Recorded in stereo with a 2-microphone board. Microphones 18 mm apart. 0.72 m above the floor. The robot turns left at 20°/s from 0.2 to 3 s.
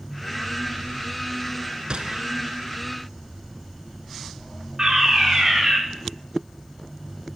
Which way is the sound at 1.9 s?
60° right (ahead or behind).